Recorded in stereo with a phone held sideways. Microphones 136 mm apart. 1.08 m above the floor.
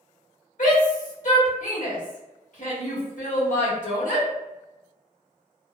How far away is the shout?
About 1.4 m.